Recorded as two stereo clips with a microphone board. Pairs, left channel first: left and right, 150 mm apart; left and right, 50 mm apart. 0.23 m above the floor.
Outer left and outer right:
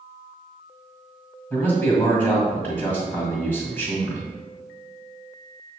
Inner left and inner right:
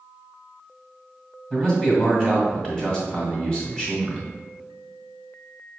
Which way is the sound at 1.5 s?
15° left (ahead or behind).